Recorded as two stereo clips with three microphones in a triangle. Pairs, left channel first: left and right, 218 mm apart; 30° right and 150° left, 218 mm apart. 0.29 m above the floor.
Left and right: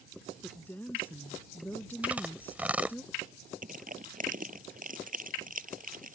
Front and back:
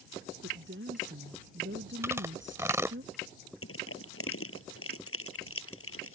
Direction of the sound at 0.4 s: 170° left.